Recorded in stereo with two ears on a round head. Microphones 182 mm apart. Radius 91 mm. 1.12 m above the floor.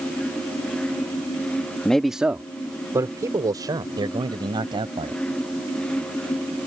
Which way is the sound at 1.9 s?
5° left (ahead or behind).